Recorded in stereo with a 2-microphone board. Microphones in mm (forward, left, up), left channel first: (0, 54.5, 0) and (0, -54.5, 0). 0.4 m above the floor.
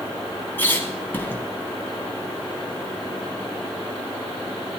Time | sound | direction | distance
0.6 | a squeak | 20° left (ahead or behind) | 1.7 m